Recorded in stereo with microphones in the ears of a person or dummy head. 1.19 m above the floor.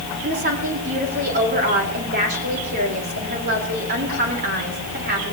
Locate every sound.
0.2 s a woman speaking: 50° right (ahead or behind), 3.5 m